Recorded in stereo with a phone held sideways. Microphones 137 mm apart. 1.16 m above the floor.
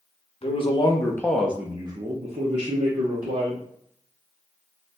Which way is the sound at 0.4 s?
45° left (ahead or behind).